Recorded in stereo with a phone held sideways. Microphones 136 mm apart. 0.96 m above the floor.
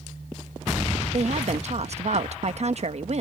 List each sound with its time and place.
1.1 s a woman speaking: 55° right (ahead or behind)